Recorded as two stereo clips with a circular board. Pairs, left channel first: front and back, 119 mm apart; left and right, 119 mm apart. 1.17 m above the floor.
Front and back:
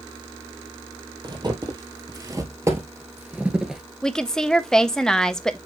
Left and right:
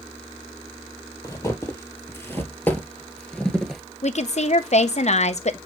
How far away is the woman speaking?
About 0.6 m.